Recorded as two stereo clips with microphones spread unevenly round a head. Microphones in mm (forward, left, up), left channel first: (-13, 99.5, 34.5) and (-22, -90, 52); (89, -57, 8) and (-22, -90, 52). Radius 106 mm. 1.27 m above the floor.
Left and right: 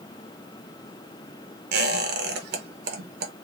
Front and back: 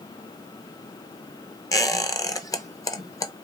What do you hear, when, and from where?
1.7 s a squeak: 50° right, 0.8 m